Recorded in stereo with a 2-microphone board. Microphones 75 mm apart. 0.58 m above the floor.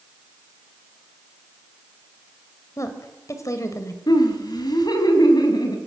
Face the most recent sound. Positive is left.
turn(degrees=65)  # may be behind; listen again after turning